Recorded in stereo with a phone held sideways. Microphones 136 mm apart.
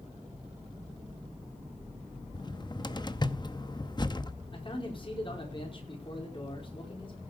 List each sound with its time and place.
2.3 s a cupboard door: 30° left (ahead or behind), 0.8 m
4.5 s a man speaking: 40° left (ahead or behind), 4.5 m